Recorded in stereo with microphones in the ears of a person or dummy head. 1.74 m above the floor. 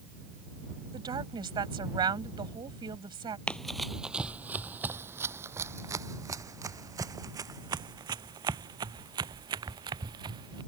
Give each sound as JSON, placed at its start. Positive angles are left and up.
{"t": 0.9, "sound": "a woman speaking", "side_deg": -30}
{"t": 3.5, "sound": "running footsteps", "side_deg": 0}